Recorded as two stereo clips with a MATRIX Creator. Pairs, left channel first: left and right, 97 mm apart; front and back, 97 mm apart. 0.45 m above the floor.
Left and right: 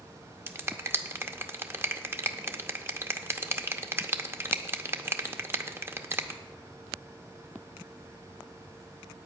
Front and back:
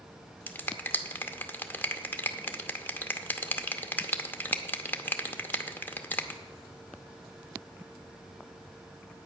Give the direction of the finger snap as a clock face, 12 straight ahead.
2 o'clock.